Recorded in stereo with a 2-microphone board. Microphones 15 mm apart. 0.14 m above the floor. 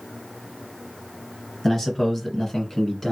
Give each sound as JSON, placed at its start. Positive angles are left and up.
{"t": 1.6, "sound": "a man speaking", "side_deg": 15, "distance_m": 1.6}